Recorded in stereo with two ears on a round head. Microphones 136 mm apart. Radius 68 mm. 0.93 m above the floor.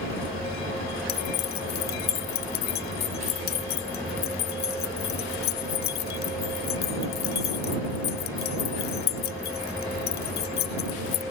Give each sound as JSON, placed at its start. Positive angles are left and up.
{"t": 1.1, "sound": "keys jangling", "side_deg": 75}